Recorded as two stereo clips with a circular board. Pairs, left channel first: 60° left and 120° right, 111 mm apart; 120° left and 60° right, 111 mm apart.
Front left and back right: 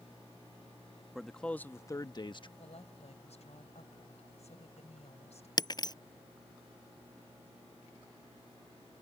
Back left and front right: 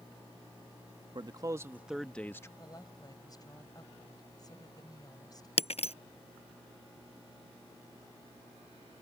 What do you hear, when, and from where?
1.1 s a man speaking: 30° right; by 2.5 s 65° left
2.6 s a woman speaking: 65° left
5.6 s breaking glass: 110° left